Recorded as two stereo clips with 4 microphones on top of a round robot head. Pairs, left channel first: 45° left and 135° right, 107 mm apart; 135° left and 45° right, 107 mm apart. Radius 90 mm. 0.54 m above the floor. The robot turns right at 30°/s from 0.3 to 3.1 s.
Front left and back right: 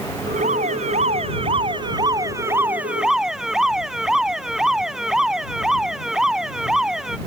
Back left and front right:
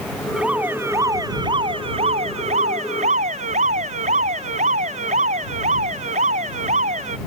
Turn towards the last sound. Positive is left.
turn(degrees=-45)